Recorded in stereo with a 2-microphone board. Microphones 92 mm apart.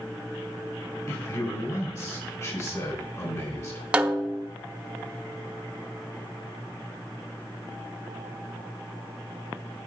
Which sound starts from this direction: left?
A man speaking, at 1.1 s.